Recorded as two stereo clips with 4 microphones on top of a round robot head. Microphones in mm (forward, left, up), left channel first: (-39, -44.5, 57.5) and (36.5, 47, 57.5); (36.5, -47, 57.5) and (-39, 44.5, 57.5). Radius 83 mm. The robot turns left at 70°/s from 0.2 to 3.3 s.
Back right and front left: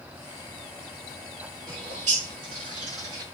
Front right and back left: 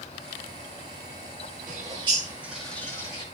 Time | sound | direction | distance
1.7 | a bird | 105° left | 2.5 m